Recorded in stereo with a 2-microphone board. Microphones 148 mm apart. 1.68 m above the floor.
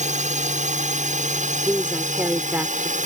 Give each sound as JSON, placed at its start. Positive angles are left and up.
{"t": 0.0, "sound": "a drone", "side_deg": -55}
{"t": 1.6, "sound": "a woman speaking", "side_deg": -10}